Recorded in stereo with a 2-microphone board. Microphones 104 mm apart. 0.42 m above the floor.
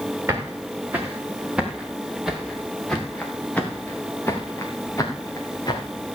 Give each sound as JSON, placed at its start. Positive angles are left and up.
{"t": 0.3, "sound": "footsteps", "side_deg": -25, "distance_m": 4.5}